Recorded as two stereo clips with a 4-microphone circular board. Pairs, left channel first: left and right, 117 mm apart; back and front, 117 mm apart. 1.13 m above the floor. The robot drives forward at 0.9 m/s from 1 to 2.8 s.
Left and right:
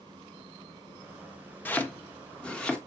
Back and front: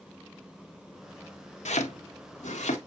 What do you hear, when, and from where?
1.6 s chopping: 165° left, 1.0 m; by 2.8 s 175° left, 2 m